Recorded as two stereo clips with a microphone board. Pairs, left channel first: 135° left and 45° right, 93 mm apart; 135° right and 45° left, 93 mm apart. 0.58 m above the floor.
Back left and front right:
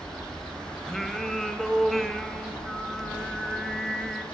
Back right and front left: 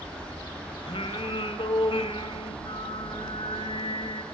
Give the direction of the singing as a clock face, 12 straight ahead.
5 o'clock.